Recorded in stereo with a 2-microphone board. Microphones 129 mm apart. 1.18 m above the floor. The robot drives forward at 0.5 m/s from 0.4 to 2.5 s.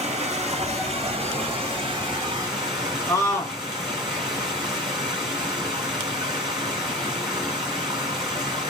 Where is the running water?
60° right (ahead or behind), 1.3 m; by 8.7 s 35° right (ahead or behind), 2.0 m.